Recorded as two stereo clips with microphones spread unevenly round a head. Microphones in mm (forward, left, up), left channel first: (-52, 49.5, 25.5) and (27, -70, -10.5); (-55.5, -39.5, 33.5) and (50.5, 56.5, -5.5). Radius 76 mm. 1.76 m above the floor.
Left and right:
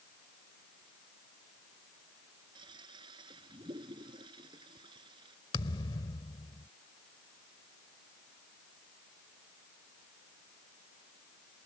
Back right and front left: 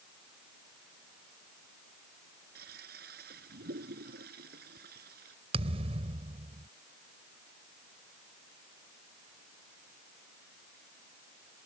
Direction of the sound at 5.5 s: 100° left.